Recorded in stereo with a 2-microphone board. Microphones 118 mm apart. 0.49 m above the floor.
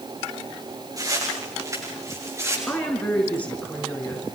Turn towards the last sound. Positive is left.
turn(degrees=10)  # may be behind; listen again after turning